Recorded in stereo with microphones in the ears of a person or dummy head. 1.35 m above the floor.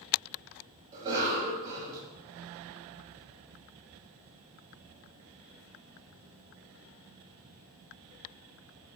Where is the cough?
10° right (ahead or behind), 0.9 m.